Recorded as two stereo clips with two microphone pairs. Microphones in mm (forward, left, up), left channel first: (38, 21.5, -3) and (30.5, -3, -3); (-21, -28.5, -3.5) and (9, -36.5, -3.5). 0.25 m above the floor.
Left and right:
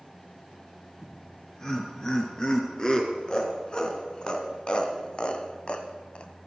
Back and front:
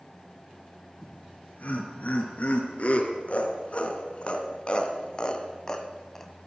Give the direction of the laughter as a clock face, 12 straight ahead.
8 o'clock.